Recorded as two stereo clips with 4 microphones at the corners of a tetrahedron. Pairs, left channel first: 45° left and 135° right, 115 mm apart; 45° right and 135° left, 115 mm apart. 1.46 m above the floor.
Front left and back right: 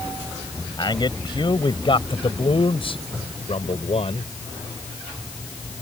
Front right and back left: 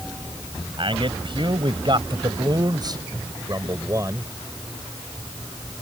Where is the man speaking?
95° left; by 4.3 s 70° left.